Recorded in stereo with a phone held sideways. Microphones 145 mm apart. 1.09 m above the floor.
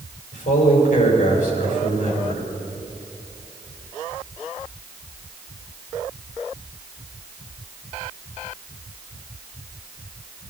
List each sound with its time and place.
0.3 s a man speaking: 60° left (ahead or behind), 5.5 m